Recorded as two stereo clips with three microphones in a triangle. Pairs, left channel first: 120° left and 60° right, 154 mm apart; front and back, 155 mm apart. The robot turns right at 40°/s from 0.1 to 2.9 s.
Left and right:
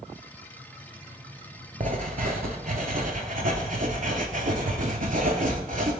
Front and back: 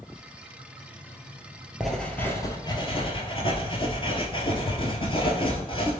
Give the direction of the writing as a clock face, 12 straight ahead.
3 o'clock.